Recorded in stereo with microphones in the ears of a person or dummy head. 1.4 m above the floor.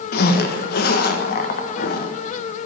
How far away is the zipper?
About 1.1 m.